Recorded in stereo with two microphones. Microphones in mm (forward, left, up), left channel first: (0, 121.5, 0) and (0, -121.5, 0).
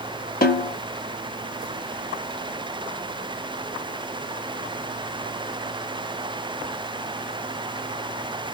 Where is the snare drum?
40° left (ahead or behind), 1.6 m.